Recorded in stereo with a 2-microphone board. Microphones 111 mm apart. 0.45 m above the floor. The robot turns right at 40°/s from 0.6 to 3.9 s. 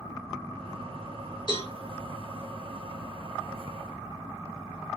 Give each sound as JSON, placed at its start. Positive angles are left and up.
{"t": 1.5, "sound": "a cowbell", "side_deg": 45, "distance_m": 2.0}